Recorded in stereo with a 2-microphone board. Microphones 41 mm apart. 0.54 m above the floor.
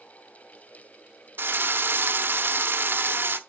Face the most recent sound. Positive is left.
turn(degrees=-55)  # may be behind; listen again after turning